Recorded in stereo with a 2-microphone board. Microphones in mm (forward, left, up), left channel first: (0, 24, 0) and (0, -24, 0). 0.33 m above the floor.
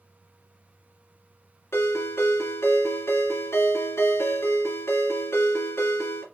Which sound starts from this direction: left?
A ringtone, at 1.7 s.